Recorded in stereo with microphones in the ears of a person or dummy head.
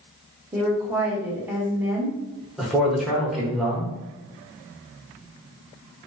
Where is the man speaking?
5° right (ahead or behind), 1.1 m.